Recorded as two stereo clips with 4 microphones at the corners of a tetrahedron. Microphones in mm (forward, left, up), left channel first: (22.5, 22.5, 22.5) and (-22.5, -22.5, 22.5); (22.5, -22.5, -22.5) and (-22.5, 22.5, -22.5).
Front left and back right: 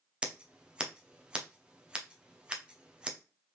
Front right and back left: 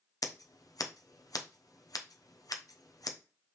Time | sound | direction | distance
0.2 | scissors | 60° right | 0.7 m